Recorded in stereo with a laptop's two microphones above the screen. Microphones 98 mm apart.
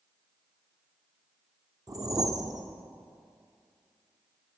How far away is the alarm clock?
I don't hear an alarm clock.